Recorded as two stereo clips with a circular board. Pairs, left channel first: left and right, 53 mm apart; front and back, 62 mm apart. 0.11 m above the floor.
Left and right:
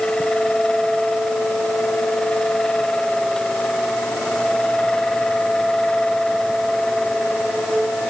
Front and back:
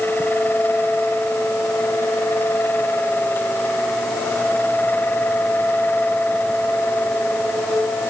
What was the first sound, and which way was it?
Only background noise.